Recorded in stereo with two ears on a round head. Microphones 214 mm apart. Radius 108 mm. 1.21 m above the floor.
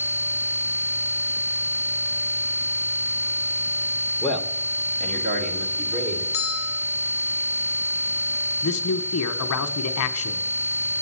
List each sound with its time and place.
4.2 s a man speaking: 5° left (ahead or behind), 1.1 m; by 6.2 s 45° right (ahead or behind), 3.5 m
6.3 s a bell: 60° left (ahead or behind), 1.1 m
8.6 s a man speaking: 65° left (ahead or behind), 1.0 m